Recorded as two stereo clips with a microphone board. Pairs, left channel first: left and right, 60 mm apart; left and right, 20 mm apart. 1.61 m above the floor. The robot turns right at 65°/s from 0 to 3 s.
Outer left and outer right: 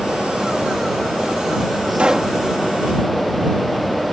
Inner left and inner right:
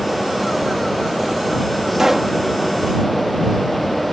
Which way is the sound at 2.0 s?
20° right (ahead or behind).